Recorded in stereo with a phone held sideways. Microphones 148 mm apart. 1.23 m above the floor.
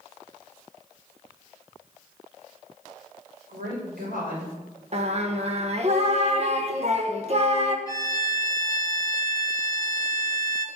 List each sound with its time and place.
3.5 s a woman speaking: 85° right, 5.5 m
4.9 s singing: 45° right (ahead or behind), 1.3 m
7.9 s a violin: 25° left (ahead or behind), 1.4 m